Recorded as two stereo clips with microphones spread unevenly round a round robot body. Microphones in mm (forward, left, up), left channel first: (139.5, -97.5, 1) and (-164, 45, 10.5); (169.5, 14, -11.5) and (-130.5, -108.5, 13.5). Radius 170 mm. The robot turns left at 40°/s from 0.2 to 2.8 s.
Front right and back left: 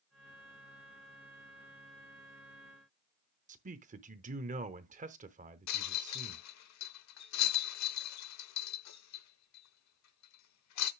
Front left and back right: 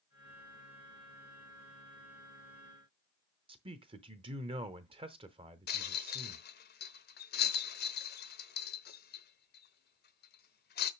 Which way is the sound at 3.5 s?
145° left.